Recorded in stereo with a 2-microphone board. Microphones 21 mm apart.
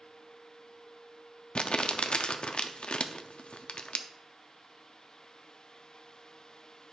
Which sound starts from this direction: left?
Crumpling, at 1.6 s.